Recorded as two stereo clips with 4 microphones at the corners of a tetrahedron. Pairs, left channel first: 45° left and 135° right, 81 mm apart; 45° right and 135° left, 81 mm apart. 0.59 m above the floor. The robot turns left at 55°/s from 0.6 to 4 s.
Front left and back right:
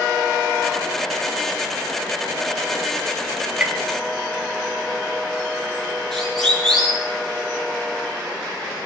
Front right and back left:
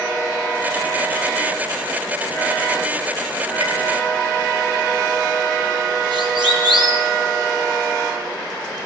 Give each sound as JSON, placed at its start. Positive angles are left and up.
{"t": 3.6, "sound": "tapping", "azimuth_deg": 150, "distance_m": 3.0}
{"t": 6.1, "sound": "a siren", "azimuth_deg": 130, "distance_m": 7.5}